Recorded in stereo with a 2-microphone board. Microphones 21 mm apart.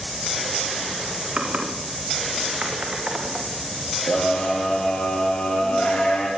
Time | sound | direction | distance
1.4 | typing on a keyboard | 60° right (ahead or behind) | 5.5 m
4.1 | a scream | 65° left (ahead or behind) | 7.5 m